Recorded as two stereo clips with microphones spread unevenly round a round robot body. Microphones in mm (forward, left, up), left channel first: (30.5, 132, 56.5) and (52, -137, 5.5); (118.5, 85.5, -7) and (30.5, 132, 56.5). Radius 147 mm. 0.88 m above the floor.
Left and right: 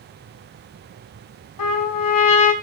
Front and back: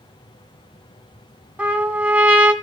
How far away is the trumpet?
About 2 m.